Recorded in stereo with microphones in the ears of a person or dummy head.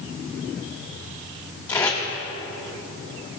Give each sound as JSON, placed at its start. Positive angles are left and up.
{"t": 1.7, "sound": "tape being pulled", "side_deg": 20, "distance_m": 1.6}